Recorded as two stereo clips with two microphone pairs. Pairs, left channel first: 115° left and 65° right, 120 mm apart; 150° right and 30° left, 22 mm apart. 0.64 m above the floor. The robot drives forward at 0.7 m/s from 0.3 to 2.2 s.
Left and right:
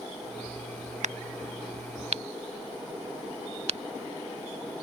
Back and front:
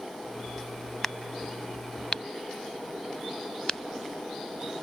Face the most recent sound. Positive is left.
turn(degrees=-95)